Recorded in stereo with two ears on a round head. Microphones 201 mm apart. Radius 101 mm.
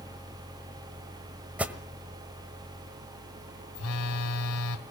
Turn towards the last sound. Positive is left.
turn(degrees=75)  # may be behind; listen again after turning